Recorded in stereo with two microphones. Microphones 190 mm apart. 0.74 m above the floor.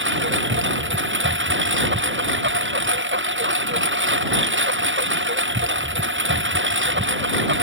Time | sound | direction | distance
0.0 | a lawn mower | 85° right | ?